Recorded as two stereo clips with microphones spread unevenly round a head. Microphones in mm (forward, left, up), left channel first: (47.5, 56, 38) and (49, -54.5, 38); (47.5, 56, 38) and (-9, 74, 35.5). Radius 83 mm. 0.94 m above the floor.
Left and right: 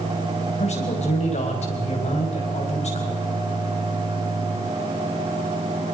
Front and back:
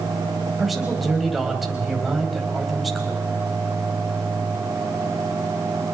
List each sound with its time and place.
0.6 s a man speaking: 75° left, 5 m